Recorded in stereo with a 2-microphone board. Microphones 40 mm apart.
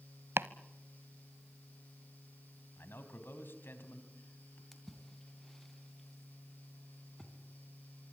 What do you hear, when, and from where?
0.4 s chopping: 80° right, 0.7 m
2.8 s a man speaking: 65° left (ahead or behind), 3.5 m
4.7 s a splash: 10° left (ahead or behind), 3 m